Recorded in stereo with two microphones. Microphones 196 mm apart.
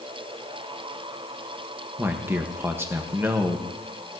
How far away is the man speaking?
About 0.8 m.